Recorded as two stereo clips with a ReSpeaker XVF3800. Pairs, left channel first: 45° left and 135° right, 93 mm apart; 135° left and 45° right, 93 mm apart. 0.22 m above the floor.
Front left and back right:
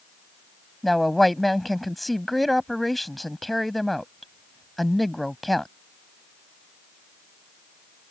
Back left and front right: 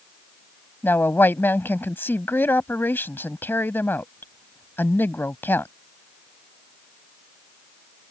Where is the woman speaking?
130° left.